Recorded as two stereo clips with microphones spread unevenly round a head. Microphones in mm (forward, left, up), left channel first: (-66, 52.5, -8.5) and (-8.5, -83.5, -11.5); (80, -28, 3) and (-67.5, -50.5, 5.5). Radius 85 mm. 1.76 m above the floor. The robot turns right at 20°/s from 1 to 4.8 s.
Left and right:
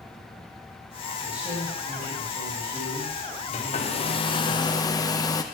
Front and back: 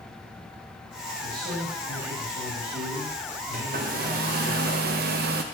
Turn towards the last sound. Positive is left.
turn(degrees=175)